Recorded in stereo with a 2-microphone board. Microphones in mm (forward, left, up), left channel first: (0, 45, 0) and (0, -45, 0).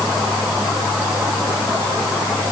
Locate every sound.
Only background noise.